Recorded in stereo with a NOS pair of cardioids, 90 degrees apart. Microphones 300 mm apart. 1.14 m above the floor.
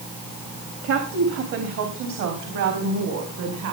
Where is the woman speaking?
65° right, 2.5 m; by 3.7 s 70° right, 5 m.